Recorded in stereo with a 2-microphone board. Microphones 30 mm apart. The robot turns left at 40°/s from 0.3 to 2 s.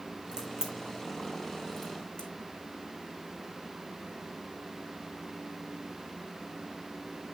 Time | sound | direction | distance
0.3 | a crack | 30° right (ahead or behind) | 3.5 m